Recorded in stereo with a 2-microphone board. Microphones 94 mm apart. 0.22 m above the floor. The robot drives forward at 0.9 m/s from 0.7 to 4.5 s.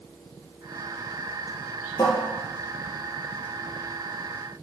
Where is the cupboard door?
35° left (ahead or behind), 3 m; by 2.2 s 40° left (ahead or behind), 3 m.